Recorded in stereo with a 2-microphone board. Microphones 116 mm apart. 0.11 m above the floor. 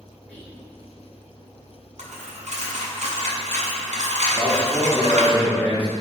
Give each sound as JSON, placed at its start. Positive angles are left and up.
{"t": 0.3, "sound": "whispering", "side_deg": 15, "distance_m": 1.7}
{"t": 2.0, "sound": "a dropped coin", "side_deg": -85, "distance_m": 1.2}
{"t": 4.3, "sound": "a man speaking", "side_deg": 10, "distance_m": 1.1}